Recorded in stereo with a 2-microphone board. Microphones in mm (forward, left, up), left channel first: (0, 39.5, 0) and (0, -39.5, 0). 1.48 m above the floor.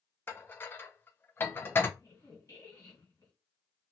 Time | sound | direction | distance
0.3 | dishes clattering | 25° left (ahead or behind) | 0.5 m
2.0 | a squeak | 40° left (ahead or behind) | 1.9 m